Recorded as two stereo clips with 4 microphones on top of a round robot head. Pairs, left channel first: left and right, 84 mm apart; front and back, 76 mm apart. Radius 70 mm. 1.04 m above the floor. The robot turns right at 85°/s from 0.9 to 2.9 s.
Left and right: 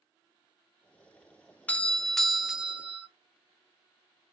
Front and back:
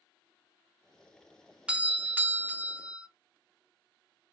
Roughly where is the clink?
I don't hear a clink.